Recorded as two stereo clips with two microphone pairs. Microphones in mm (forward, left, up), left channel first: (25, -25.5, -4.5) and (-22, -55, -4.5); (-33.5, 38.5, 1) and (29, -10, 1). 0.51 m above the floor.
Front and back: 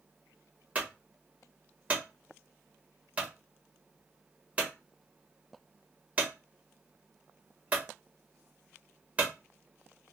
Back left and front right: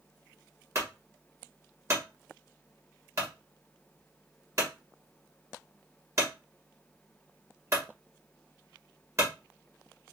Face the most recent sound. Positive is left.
turn(degrees=-85)